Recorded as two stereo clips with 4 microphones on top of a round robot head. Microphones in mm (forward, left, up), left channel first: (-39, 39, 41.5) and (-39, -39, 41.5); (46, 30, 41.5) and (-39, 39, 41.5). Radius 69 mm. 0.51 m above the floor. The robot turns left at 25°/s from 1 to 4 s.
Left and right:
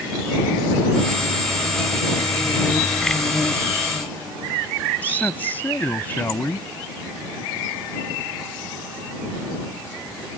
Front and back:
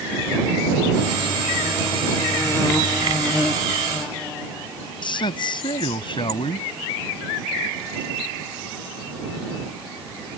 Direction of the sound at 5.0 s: 15° left.